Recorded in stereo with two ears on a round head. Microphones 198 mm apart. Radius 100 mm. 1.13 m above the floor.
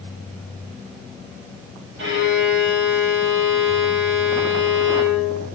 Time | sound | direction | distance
2.0 | a violin | 55° right (ahead or behind) | 1.6 m